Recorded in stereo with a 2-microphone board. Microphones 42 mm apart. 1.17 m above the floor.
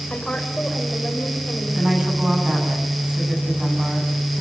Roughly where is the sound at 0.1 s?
Left.